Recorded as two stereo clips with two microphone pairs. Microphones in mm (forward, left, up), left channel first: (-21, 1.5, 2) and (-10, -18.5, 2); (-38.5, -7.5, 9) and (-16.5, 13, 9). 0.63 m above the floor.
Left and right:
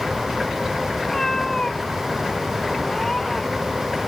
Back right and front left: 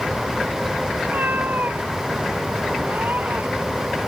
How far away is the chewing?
No chewing in this recording.